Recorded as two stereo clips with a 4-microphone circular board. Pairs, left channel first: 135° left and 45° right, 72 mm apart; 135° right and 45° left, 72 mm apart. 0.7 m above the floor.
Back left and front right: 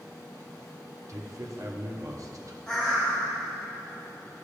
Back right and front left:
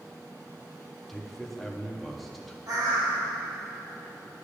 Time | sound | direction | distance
1.1 | a man speaking | 45° right | 0.7 m
2.7 | a bird | 55° left | 1.5 m